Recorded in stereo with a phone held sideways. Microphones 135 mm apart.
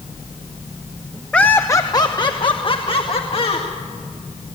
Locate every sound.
1.3 s laughter: 10° left (ahead or behind), 0.7 m; by 3.7 s 50° left (ahead or behind), 2 m